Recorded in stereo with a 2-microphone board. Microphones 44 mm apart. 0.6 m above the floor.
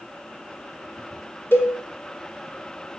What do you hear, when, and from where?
1.5 s a cowbell: 50° left (ahead or behind), 1.4 m